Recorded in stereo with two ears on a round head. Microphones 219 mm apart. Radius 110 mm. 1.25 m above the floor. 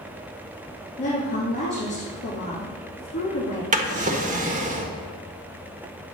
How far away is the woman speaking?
About 3 m.